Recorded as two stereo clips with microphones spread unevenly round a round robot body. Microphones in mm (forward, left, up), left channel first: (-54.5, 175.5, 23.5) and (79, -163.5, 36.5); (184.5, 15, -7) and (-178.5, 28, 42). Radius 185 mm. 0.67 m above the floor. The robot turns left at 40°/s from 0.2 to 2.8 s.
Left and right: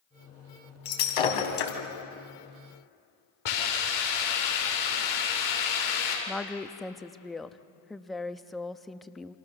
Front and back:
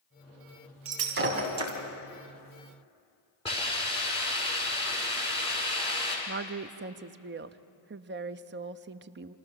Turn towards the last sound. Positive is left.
turn(degrees=-165)